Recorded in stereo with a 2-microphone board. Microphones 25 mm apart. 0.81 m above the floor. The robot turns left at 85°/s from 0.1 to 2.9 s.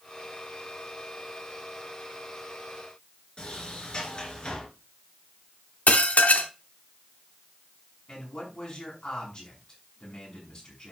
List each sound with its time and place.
3.4 s a sliding door: 45° left (ahead or behind), 3 m
5.9 s dishes clattering: 80° left, 1.0 m
8.1 s a man speaking: 45° left (ahead or behind), 6.5 m